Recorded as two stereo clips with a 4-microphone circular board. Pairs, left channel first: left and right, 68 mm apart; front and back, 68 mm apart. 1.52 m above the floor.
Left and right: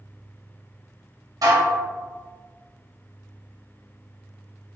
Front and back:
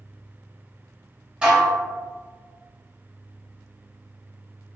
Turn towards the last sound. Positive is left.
turn(degrees=-105)